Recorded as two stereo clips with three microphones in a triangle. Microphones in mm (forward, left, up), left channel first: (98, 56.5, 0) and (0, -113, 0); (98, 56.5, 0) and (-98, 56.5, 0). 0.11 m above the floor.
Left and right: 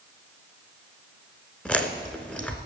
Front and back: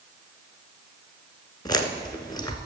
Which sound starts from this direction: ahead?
Chewing, at 1.6 s.